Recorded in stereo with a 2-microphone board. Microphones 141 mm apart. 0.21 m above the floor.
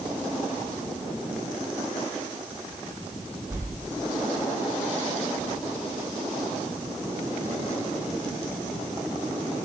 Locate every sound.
3.5 s a whoosh: 15° right (ahead or behind), 8 m